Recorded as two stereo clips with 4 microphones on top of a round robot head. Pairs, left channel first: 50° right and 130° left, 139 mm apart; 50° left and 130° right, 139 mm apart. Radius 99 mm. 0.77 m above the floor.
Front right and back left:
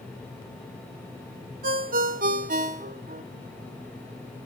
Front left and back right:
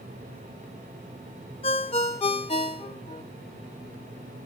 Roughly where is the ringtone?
Left.